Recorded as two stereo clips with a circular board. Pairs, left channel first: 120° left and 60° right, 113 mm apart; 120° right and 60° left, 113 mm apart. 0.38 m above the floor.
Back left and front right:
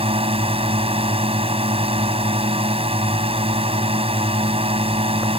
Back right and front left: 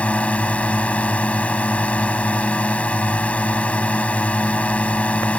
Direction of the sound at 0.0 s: 40° right.